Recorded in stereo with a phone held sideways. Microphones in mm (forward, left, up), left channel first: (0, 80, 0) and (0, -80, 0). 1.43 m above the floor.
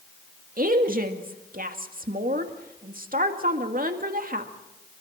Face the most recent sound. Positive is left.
turn(degrees=-60)  # may be behind; listen again after turning